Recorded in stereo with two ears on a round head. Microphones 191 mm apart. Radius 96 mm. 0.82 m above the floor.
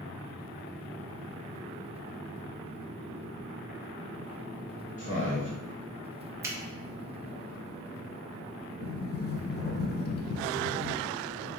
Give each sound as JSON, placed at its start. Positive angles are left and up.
{"t": 5.0, "sound": "a man speaking", "side_deg": 35, "distance_m": 1.2}
{"t": 6.4, "sound": "a finger snap", "side_deg": -15, "distance_m": 0.8}
{"t": 8.8, "sound": "a sliding door", "side_deg": 50, "distance_m": 0.6}